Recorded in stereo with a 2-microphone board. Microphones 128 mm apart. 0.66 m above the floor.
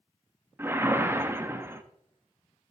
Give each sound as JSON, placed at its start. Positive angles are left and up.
{"t": 0.6, "sound": "a whoosh", "side_deg": -20, "distance_m": 0.9}